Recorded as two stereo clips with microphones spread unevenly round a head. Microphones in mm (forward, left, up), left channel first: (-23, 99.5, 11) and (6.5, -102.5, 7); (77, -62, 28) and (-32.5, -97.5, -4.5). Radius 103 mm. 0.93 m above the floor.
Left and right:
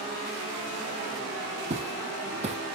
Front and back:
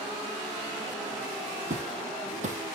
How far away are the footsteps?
About 1.6 m.